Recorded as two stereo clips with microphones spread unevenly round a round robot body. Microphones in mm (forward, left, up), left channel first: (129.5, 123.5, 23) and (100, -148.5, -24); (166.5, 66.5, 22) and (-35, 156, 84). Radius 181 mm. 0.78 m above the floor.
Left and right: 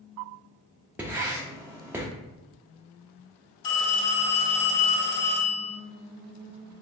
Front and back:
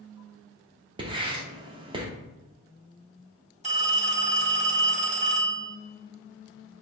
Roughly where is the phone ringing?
Left.